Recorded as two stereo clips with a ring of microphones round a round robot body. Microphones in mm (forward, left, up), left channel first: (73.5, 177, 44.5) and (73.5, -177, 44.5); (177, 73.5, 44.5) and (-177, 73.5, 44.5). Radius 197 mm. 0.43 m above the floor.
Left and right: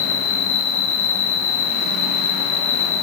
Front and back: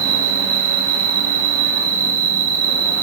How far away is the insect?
About 5.5 m.